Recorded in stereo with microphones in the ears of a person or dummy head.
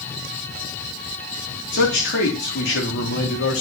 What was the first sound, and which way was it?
A man speaking, 60° left (ahead or behind).